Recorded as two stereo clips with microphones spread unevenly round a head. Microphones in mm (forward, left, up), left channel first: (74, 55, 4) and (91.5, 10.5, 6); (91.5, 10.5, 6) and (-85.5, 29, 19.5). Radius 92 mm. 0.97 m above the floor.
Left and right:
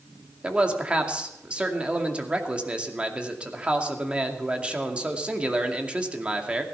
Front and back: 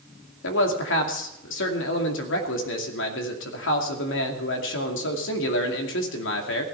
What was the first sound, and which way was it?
A man speaking, straight ahead.